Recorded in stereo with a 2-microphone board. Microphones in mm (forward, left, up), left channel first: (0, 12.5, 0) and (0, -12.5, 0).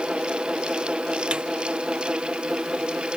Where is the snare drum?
35° right (ahead or behind).